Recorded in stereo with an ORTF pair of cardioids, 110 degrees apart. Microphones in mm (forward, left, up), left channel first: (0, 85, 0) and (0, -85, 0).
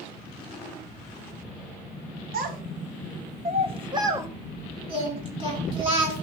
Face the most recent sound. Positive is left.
turn(degrees=-35)